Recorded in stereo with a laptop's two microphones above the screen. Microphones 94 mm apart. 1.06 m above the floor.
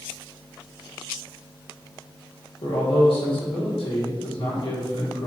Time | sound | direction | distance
2.6 | a man speaking | 70° left (ahead or behind) | 2.5 m